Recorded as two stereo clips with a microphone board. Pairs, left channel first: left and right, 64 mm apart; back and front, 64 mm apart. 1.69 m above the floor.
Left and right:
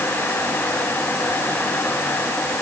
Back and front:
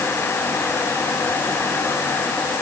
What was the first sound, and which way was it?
Only background noise.